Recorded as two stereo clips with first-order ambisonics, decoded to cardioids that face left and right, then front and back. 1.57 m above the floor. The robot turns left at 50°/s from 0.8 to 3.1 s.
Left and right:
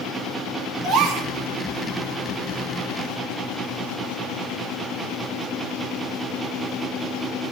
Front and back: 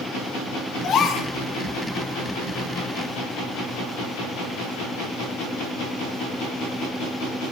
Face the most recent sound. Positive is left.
turn(degrees=-160)